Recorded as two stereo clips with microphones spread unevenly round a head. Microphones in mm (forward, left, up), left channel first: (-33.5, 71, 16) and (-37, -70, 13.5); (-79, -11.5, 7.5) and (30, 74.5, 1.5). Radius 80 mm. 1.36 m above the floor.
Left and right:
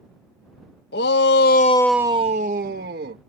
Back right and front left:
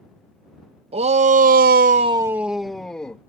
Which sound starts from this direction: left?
A shout, at 0.9 s.